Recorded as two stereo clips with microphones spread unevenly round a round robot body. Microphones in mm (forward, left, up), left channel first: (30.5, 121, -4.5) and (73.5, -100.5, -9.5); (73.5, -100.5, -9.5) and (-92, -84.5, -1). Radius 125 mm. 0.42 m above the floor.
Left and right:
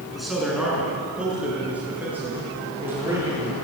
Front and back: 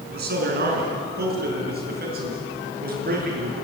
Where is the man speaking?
170° right, 6 m; by 3.5 s 160° right, 8.5 m.